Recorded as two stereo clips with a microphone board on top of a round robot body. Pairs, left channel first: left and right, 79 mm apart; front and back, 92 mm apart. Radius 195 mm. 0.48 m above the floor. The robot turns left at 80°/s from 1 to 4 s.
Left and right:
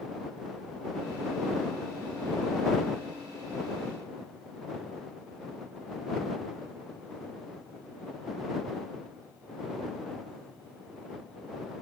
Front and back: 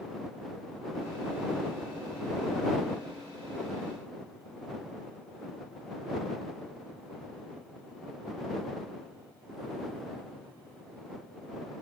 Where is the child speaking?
I don't hear a child speaking.